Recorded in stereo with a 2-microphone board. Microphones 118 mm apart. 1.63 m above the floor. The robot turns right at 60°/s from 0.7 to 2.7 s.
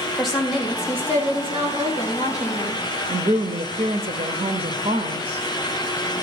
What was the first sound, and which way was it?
A woman speaking, straight behind.